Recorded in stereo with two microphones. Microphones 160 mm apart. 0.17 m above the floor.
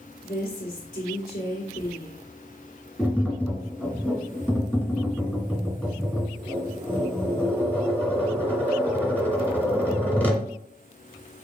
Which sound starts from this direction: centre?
Tapping, at 3.0 s.